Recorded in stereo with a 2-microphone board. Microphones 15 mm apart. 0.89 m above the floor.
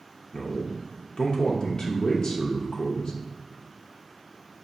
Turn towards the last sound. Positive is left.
turn(degrees=50)  # may be behind; listen again after turning